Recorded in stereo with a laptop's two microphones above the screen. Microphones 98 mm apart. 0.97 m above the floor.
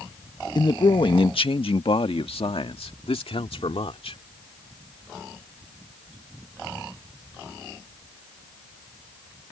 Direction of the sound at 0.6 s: 50° left (ahead or behind).